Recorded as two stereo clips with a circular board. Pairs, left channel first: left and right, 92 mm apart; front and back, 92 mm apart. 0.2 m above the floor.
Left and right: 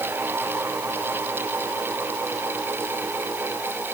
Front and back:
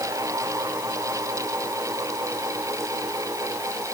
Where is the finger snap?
No finger snap in this recording.